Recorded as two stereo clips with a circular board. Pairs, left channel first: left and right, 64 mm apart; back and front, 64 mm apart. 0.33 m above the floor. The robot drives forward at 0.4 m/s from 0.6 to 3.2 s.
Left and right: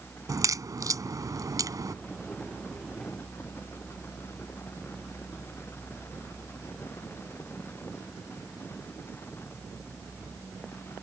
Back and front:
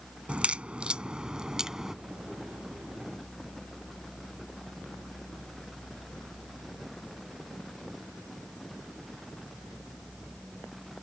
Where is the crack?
70° right; by 1.9 s 80° right.